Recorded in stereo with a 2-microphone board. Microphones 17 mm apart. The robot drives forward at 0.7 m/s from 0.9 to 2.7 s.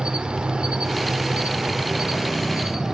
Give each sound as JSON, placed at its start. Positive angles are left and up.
{"t": 0.0, "sound": "an insect", "side_deg": -80, "distance_m": 0.8}